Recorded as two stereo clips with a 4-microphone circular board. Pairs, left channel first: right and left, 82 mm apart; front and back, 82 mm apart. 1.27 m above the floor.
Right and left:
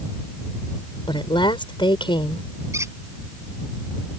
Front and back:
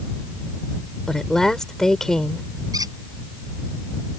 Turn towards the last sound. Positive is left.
turn(degrees=140)